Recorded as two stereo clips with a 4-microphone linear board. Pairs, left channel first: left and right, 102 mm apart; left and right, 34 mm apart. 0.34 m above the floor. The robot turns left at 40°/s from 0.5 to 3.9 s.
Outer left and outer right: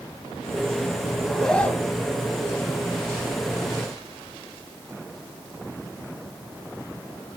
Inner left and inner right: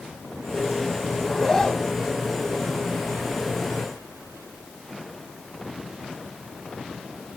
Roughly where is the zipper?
Behind.